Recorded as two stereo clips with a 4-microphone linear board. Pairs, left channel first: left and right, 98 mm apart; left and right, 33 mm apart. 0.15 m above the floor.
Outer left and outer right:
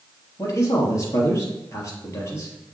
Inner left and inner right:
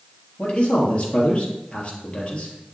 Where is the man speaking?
30° left (ahead or behind), 3 m.